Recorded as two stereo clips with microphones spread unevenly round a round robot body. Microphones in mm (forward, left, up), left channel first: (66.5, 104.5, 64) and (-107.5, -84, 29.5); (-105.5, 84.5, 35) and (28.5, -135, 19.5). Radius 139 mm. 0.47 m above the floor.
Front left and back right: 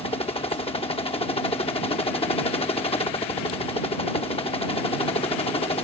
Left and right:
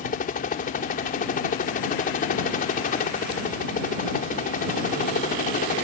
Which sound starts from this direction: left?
A helicopter, at 0.0 s.